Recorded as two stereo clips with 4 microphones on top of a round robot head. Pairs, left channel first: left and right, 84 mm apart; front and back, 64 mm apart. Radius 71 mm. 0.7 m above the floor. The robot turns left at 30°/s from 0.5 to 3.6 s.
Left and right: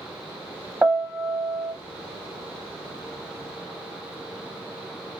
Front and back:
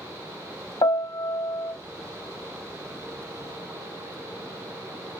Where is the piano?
10° right, 1.0 m; by 1.7 s 40° right, 1.0 m.